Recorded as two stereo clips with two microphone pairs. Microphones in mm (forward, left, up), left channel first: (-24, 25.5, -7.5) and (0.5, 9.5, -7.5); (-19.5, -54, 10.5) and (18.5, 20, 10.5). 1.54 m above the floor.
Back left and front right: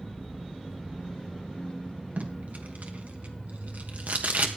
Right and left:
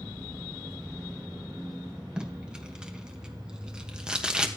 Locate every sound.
2.2 s tape being pulled: 20° right, 1.3 m